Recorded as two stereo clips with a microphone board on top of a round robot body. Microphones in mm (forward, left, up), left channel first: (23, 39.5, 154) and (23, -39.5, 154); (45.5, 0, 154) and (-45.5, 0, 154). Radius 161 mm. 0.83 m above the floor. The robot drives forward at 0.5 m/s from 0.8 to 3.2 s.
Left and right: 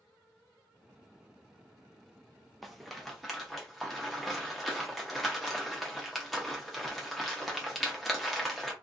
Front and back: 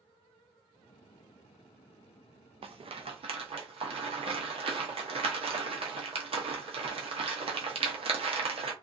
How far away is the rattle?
About 0.5 m.